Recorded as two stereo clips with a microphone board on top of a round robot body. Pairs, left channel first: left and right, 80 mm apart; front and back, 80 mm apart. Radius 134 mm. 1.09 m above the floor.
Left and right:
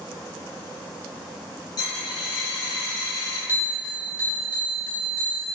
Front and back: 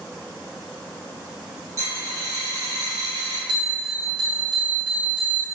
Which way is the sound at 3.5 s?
155° right.